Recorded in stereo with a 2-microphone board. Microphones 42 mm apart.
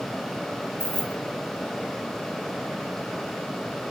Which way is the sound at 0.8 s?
65° right (ahead or behind).